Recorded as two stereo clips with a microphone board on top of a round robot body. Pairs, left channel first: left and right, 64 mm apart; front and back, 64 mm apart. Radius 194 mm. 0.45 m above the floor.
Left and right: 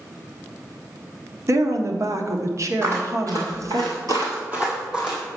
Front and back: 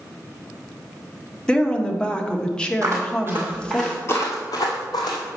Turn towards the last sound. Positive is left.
turn(degrees=-5)